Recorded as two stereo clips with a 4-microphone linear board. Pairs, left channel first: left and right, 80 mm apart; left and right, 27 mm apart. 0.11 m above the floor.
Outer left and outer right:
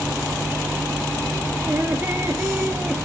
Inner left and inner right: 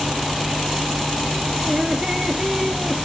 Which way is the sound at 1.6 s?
30° right (ahead or behind).